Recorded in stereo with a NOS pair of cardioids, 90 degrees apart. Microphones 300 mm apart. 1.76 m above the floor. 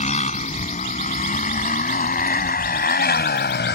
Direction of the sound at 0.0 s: 20° left.